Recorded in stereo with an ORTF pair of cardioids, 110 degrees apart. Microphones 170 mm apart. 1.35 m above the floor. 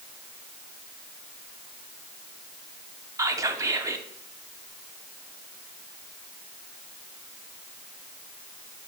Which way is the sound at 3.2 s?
20° right.